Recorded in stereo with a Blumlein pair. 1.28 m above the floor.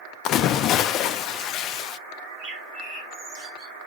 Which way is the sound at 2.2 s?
35° right.